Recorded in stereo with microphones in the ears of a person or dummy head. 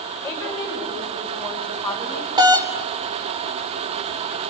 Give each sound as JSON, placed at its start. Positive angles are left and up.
{"t": 0.2, "sound": "a woman speaking", "side_deg": 5, "distance_m": 5.5}
{"t": 2.4, "sound": "a doorbell", "side_deg": -20, "distance_m": 1.2}